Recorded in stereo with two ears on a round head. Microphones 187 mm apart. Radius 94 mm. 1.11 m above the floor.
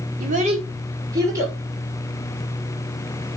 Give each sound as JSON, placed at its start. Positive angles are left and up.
{"t": 0.2, "sound": "a child speaking", "side_deg": -40, "distance_m": 2.0}